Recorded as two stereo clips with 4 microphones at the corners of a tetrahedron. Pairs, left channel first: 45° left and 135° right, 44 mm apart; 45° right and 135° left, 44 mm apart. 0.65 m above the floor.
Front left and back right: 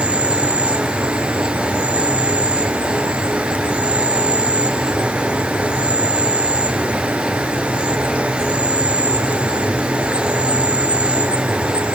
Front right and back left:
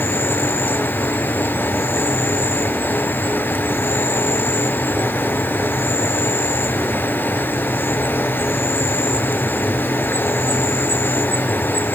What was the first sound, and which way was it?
An insect, 80° right.